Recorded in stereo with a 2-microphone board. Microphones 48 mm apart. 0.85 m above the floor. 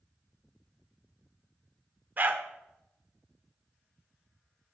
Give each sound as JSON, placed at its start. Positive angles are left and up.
{"t": 2.2, "sound": "a dog barking", "side_deg": -40, "distance_m": 0.8}